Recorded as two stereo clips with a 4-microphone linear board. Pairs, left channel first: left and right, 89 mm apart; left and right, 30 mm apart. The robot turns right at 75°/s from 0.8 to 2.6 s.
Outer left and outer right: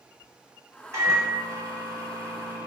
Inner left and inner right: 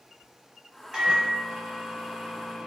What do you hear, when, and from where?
0.9 s a microwave: 140° right, 1.1 m; by 2.7 s 15° right, 1.1 m